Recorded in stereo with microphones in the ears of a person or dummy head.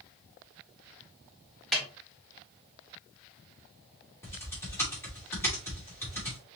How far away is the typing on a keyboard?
About 2.5 m.